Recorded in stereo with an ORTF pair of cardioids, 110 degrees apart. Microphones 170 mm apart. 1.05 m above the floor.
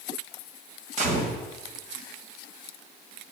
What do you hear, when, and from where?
1.0 s a gunshot: 50° right, 2.0 m